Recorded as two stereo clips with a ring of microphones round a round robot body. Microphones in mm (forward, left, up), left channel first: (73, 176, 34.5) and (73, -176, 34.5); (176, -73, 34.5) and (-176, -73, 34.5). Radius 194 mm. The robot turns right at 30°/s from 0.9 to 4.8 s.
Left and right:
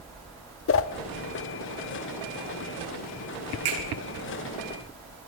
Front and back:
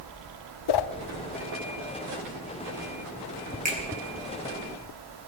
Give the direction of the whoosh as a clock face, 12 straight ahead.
11 o'clock.